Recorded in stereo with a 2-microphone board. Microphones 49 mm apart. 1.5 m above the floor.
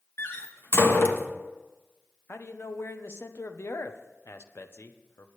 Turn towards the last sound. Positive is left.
turn(degrees=55)  # may be behind; listen again after turning